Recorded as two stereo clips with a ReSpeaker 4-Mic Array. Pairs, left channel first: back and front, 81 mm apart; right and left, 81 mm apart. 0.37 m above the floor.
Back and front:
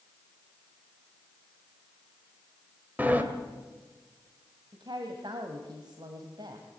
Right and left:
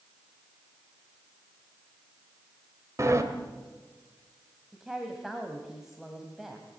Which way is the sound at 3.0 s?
60° left.